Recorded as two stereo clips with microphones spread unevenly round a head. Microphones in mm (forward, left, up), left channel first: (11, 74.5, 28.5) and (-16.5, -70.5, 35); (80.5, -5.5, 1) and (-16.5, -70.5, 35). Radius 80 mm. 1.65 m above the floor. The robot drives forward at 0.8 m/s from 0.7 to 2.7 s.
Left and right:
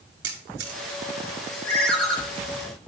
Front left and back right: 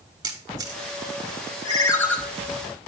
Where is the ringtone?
5° right, 0.8 m; by 2.2 s 165° right, 0.8 m.